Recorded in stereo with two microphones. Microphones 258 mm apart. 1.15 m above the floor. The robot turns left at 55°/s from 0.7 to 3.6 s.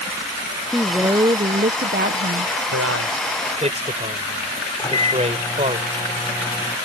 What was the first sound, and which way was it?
A woman speaking, straight ahead.